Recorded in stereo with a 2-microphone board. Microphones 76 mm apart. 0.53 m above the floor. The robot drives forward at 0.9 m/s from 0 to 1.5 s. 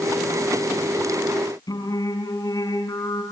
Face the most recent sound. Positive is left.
turn(degrees=55)  # may be behind; listen again after turning